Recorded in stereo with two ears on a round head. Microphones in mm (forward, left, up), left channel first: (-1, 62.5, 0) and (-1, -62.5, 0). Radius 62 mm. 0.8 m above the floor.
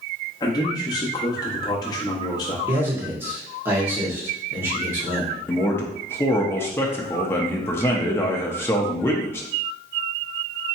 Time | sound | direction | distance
0.4 | a man speaking | 30° left (ahead or behind) | 1.3 m
2.7 | a man speaking | 15° right (ahead or behind) | 1.8 m
5.5 | a man speaking | 15° left (ahead or behind) | 0.7 m